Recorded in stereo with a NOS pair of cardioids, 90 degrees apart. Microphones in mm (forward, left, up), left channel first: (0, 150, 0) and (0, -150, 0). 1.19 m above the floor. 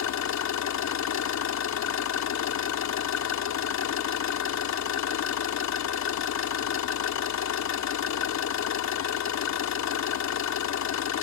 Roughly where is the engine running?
Ahead left.